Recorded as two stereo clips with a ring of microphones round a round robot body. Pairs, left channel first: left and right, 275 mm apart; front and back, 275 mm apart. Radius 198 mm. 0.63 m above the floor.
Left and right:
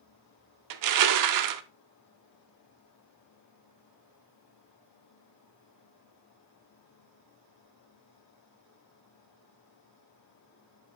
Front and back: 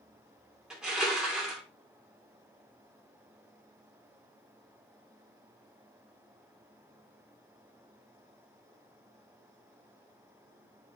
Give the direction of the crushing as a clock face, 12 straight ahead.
3 o'clock.